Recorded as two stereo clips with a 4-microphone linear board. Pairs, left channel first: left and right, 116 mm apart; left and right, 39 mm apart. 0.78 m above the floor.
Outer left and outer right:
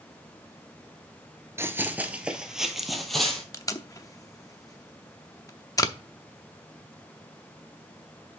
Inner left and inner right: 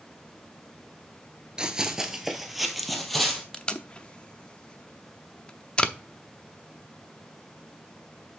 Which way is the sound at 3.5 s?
25° left (ahead or behind).